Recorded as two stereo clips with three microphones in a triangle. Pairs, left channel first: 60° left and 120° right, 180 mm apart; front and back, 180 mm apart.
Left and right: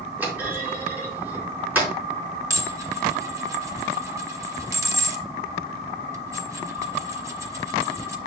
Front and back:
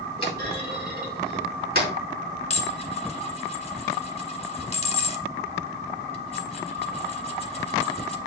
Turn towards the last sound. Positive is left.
turn(degrees=-50)